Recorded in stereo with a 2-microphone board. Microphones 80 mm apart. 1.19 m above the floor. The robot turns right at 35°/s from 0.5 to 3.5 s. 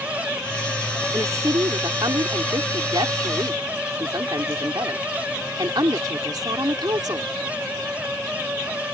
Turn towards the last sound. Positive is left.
turn(degrees=-55)